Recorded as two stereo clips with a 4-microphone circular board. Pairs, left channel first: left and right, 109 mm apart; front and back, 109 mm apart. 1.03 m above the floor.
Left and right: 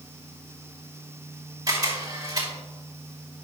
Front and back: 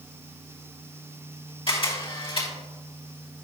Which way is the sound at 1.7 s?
35° right.